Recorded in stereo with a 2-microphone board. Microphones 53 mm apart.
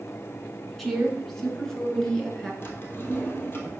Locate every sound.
0.8 s a woman speaking: 5° left (ahead or behind), 1.7 m; by 2.5 s 10° left (ahead or behind), 2.5 m
2.6 s a drawer: 45° left (ahead or behind), 1.5 m